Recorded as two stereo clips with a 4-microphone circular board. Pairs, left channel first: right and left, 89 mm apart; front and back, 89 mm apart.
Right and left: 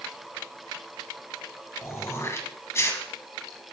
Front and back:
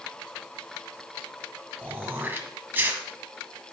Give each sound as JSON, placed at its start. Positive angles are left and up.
{"t": 1.8, "sound": "throat clearing", "azimuth_deg": -125, "distance_m": 1.8}